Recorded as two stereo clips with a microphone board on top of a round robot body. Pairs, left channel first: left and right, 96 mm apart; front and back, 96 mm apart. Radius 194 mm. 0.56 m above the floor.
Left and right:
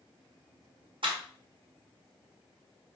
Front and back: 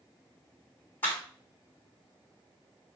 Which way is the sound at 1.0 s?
70° right.